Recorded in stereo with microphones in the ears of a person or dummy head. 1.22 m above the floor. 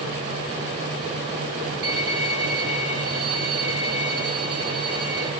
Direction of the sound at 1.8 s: 70° right (ahead or behind).